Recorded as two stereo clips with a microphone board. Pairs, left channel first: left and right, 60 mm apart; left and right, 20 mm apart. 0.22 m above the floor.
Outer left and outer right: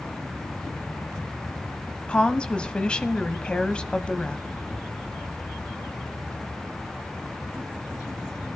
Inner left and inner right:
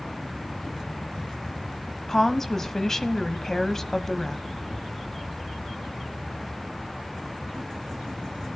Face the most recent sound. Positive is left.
turn(degrees=20)  # may be behind; listen again after turning